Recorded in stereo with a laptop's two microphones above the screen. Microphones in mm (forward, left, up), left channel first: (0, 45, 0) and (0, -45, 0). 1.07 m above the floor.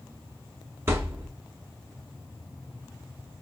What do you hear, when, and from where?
0.9 s a thud: 30° right (ahead or behind), 0.9 m